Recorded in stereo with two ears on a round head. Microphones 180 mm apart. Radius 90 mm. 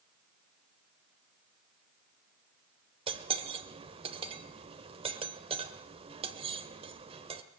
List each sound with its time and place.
3.1 s cutlery clinking: 30° right (ahead or behind), 1.4 m